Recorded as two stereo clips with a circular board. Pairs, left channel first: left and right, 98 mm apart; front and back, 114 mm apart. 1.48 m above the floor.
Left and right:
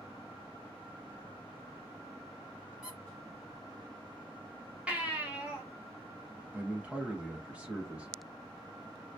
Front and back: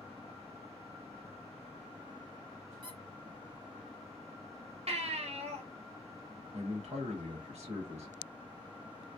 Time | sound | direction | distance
2.8 | a squeak | 170° right | 0.8 m
4.9 | a baby crying | 165° right | 0.7 m
6.5 | a man speaking | 170° right | 1.0 m